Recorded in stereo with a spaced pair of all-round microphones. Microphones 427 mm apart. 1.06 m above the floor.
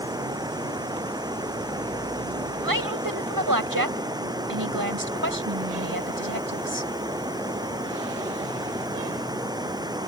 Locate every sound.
0.0 s running water: 10° right (ahead or behind)
2.6 s a woman speaking: 50° right (ahead or behind)